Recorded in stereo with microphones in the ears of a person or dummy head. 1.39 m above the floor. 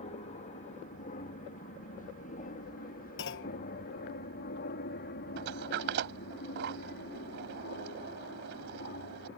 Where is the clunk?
60° left (ahead or behind).